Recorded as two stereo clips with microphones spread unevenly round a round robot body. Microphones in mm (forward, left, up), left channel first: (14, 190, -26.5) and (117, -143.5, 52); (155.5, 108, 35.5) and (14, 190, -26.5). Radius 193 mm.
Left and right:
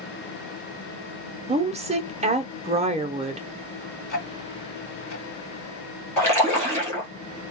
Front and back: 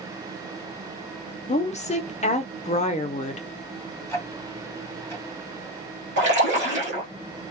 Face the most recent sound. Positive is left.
turn(degrees=-170)